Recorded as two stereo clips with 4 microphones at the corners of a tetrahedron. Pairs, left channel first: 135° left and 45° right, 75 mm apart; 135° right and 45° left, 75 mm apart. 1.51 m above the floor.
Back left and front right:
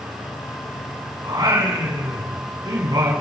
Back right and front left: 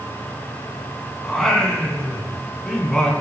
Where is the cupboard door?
No cupboard door in this recording.